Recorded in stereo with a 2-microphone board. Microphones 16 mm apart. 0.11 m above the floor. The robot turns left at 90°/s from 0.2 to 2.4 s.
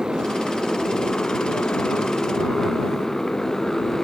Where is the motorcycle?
140° right; by 4.0 s 20° left.